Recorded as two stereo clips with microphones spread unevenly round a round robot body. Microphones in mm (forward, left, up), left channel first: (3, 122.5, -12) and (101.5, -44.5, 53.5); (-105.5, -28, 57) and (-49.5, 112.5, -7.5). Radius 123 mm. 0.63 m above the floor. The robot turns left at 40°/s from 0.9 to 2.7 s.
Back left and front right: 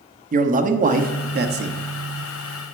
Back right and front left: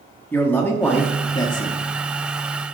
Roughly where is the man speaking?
Ahead.